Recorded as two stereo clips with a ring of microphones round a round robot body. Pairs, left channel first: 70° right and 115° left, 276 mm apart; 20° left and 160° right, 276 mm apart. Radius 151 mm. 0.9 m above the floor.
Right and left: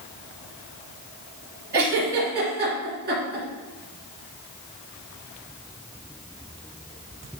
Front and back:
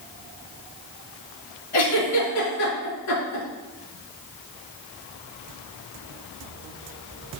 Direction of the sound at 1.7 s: 55° left.